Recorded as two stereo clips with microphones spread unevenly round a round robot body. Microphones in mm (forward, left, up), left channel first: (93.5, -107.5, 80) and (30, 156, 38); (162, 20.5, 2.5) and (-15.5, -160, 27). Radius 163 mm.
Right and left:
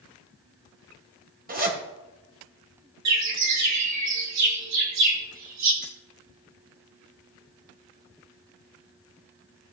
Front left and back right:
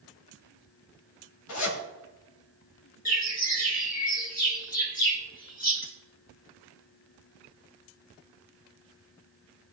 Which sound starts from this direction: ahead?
Keys jangling, at 5.8 s.